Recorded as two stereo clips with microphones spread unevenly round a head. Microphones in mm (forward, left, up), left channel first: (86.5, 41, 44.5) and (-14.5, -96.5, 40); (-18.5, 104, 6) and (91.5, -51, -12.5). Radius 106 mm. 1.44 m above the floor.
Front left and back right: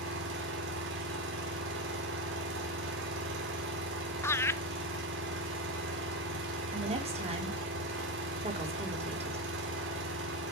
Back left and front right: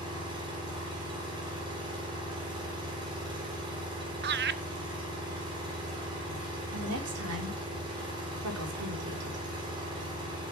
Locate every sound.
0.0 s an engine running: 125° right, 3.5 m
4.2 s laughter: 25° right, 1.0 m
6.7 s a woman speaking: 75° right, 3.5 m